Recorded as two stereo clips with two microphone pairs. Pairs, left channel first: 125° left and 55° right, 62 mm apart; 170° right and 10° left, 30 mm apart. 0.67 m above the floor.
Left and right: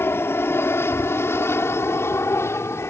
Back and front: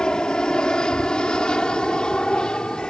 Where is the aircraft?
145° left; by 2.9 s 140° left.